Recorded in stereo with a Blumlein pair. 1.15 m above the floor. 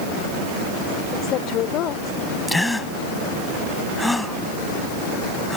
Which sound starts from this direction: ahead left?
A woman speaking, at 1.1 s.